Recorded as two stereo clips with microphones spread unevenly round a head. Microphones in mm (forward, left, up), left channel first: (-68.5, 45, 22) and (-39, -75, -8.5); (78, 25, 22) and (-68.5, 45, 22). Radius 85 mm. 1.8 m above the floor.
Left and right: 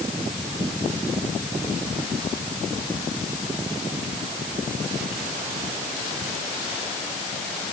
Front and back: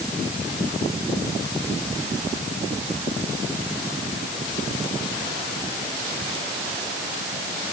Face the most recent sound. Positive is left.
No sound to turn to.